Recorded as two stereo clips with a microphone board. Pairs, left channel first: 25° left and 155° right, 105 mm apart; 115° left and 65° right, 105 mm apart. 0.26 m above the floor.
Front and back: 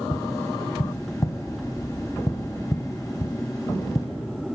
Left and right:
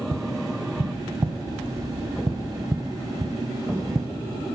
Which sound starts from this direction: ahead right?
Tapping, at 0.1 s.